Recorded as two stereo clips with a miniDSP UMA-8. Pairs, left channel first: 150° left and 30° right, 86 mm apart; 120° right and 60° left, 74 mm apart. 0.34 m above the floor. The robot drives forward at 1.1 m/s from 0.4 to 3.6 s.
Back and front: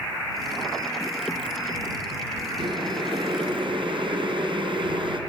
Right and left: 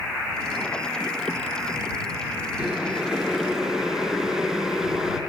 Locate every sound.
2.6 s boiling: 20° right, 5 m; by 5.2 s 25° right, 4 m